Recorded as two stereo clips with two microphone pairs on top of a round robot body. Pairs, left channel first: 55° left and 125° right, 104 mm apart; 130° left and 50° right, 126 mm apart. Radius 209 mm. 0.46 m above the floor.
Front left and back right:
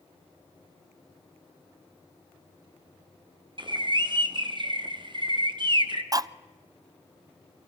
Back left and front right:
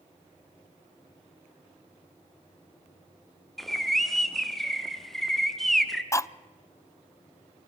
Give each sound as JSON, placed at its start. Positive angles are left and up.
{"t": 3.6, "sound": "a bird", "azimuth_deg": -145, "distance_m": 1.8}
{"t": 6.1, "sound": "cutlery clinking", "azimuth_deg": -170, "distance_m": 0.6}